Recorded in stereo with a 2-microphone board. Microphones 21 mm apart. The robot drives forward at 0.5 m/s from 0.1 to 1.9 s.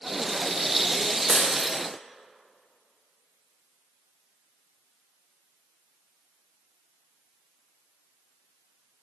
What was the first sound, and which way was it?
Breaking glass, 25° right (ahead or behind).